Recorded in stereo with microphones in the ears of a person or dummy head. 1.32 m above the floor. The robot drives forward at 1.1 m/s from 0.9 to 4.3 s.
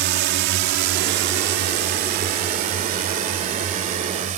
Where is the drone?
55° right (ahead or behind); by 4.4 s 40° right (ahead or behind).